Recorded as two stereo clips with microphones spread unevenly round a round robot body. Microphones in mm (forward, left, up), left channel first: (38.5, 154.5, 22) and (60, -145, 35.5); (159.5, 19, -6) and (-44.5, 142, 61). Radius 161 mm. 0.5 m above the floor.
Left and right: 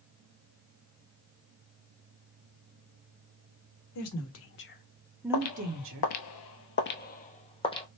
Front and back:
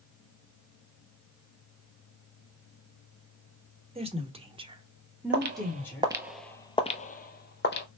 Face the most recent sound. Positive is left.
turn(degrees=20)